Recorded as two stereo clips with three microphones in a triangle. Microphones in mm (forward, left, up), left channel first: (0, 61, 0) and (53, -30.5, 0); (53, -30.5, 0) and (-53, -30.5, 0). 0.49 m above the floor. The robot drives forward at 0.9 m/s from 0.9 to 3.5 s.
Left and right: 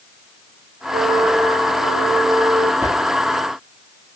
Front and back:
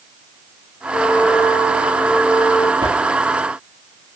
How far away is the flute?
About 6 m.